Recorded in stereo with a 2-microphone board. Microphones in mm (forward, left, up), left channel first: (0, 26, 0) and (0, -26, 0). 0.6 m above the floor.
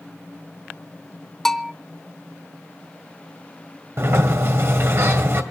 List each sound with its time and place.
1.4 s a bell: 5° left (ahead or behind), 0.9 m
4.0 s a sliding door: 55° right (ahead or behind), 2 m